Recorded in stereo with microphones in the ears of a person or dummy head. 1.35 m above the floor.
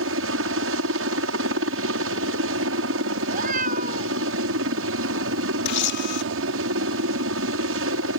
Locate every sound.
0.0 s a helicopter: 60° right (ahead or behind)
3.2 s a cat meowing: 45° right (ahead or behind)
5.7 s a camera shutter: 55° left (ahead or behind)